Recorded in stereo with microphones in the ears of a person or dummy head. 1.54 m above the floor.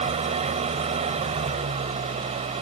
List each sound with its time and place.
0.0 s an engine running: 30° right (ahead or behind)